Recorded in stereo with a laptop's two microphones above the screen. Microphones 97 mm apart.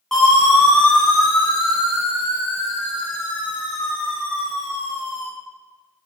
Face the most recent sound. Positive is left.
turn(degrees=35)  # may be behind; listen again after turning